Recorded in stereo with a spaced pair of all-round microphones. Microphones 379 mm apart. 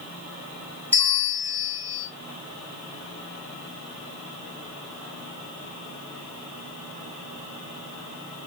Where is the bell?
5° left (ahead or behind), 2.5 m.